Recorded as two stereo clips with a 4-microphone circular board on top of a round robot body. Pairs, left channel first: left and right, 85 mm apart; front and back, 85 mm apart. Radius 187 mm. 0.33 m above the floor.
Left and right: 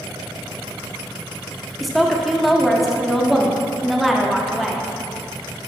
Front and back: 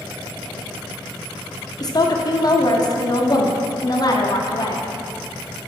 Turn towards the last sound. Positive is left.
turn(degrees=0)